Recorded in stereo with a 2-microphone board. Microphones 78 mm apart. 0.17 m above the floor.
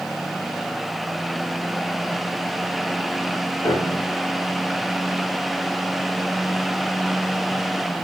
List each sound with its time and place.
3.6 s a piano: 55° left (ahead or behind), 5.5 m